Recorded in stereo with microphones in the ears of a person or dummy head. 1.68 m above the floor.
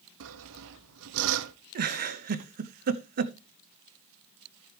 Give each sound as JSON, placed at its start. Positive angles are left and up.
{"t": 0.2, "sound": "sawing", "side_deg": -70, "distance_m": 0.8}
{"t": 1.8, "sound": "a giggle", "side_deg": -55, "distance_m": 0.8}